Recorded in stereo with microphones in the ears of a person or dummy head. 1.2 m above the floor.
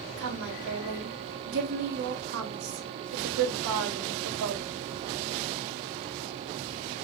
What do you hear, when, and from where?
0.2 s a woman speaking: 70° right (ahead or behind), 4 m